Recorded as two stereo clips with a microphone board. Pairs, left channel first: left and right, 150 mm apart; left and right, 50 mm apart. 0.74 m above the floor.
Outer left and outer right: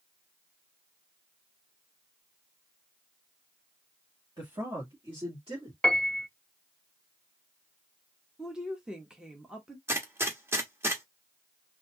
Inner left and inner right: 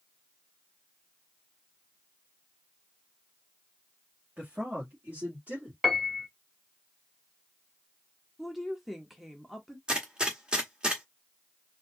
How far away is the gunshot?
About 1.1 m.